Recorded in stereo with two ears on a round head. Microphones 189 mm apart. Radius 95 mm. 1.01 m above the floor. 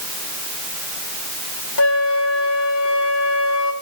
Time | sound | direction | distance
1.8 | a flute | 70° left (ahead or behind) | 1.6 m